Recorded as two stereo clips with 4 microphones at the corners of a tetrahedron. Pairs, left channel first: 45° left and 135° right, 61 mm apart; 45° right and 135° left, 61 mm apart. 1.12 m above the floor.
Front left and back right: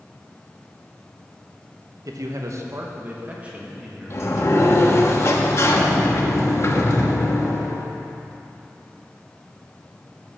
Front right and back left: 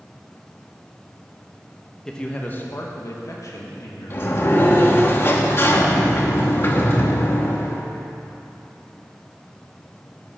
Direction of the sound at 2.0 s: 125° right.